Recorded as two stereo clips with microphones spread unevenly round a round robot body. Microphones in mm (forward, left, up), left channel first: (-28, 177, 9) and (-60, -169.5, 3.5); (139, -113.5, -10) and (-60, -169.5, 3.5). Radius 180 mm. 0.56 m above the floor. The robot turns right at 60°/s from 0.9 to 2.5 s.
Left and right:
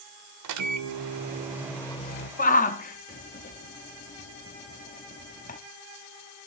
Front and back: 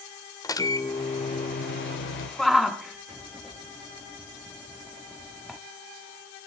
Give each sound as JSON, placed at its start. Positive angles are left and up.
{"t": 0.4, "sound": "a microwave", "azimuth_deg": -55, "distance_m": 1.8}
{"t": 2.4, "sound": "a shout", "azimuth_deg": 95, "distance_m": 0.7}